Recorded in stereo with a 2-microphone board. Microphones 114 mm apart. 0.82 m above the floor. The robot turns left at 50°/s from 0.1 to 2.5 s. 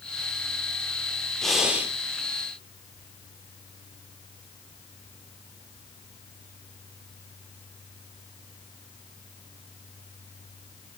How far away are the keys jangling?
I don't hear keys jangling.